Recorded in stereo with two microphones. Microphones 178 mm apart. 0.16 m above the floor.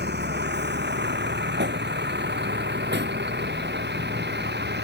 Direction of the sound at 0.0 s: 75° right (ahead or behind).